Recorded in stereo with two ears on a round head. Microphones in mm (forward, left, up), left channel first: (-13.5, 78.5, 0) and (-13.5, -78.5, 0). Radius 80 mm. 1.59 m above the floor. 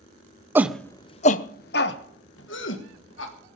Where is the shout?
10° right (ahead or behind), 0.6 m; by 3.3 s 80° left, 2 m.